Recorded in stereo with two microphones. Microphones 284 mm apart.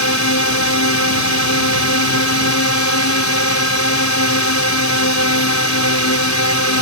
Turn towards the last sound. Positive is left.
turn(degrees=70)  # may be behind; listen again after turning